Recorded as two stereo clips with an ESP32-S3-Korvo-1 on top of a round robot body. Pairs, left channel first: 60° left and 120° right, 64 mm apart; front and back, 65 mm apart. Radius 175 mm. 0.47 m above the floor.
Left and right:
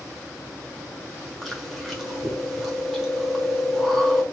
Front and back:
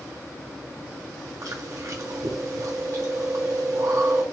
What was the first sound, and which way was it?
Chewing, 150° left.